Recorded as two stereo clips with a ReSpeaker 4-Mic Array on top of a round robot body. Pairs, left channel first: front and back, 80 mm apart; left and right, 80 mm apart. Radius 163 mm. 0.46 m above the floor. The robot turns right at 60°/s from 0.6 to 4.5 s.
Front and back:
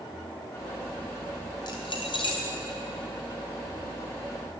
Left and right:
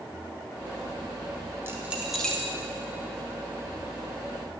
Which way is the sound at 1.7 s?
30° right.